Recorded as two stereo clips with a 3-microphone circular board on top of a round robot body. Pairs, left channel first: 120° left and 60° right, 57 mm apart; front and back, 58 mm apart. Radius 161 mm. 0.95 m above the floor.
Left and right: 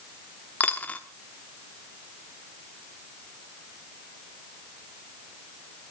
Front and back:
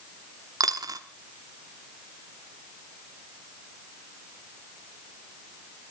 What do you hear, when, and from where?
0.6 s a dropped coin: 175° right, 0.8 m